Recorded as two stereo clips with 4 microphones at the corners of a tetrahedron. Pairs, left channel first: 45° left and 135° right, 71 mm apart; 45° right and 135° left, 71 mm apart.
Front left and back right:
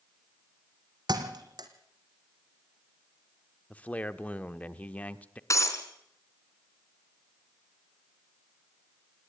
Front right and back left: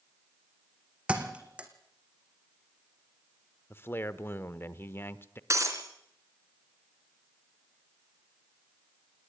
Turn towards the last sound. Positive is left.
turn(degrees=90)